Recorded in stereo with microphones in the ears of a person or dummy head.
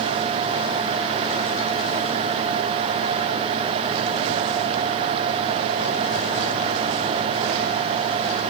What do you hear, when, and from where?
Only background noise.